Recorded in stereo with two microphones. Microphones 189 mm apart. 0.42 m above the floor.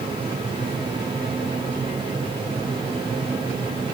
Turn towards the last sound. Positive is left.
No sound to turn to.